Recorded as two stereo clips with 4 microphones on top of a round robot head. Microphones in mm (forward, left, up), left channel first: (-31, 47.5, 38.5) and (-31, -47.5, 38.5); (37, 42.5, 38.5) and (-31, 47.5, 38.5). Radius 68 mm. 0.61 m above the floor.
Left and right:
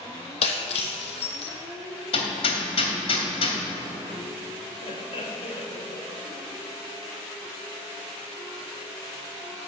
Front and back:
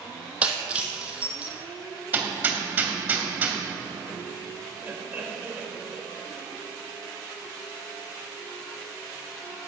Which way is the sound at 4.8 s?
110° left.